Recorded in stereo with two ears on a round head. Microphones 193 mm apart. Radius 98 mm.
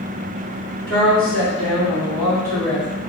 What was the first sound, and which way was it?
A woman speaking, 55° right (ahead or behind).